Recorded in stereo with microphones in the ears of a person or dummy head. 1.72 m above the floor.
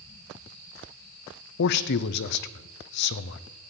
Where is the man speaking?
60° left (ahead or behind), 0.7 m.